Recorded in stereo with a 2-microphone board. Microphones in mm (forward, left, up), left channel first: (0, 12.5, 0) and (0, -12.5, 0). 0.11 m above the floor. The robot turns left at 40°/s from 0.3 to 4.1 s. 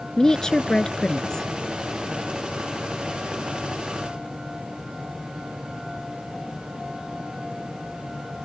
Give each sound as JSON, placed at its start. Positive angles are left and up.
{"t": 0.2, "sound": "a woman speaking", "side_deg": 25}